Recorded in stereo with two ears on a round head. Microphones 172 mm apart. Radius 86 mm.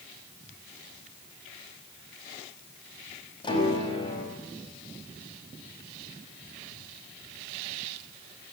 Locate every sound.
3.4 s a piano: 25° left (ahead or behind), 6 m